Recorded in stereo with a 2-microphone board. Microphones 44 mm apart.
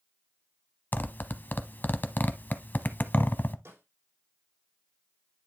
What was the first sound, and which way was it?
A zipper, 50° left (ahead or behind).